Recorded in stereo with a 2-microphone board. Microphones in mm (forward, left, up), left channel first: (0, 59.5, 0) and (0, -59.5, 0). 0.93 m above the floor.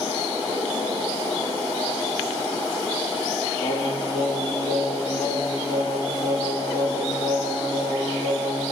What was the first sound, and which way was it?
Singing, 50° left (ahead or behind).